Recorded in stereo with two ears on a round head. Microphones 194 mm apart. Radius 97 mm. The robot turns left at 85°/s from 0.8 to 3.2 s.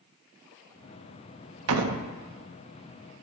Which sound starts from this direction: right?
A door slam, at 1.7 s.